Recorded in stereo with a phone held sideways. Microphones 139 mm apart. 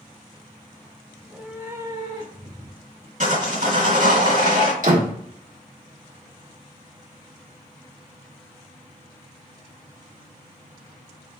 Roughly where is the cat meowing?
Centre.